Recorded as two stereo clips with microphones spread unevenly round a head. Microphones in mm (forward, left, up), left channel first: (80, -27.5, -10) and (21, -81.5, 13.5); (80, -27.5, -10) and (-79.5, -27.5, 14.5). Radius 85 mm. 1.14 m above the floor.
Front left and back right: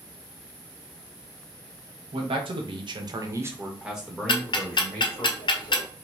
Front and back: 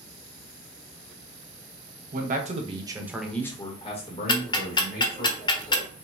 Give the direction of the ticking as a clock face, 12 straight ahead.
10 o'clock.